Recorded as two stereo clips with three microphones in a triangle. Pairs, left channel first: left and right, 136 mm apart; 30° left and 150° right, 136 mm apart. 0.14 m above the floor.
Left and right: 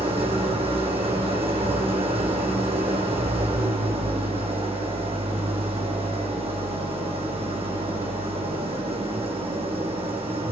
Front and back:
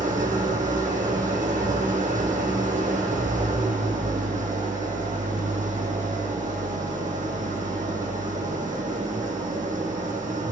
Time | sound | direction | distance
0.0 | an engine running | 135° right | 2.0 m